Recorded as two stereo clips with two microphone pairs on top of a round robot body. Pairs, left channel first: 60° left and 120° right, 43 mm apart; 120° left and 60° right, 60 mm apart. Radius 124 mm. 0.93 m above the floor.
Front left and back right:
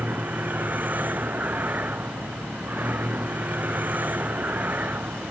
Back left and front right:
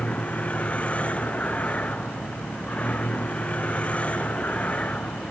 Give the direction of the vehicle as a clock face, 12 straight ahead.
6 o'clock.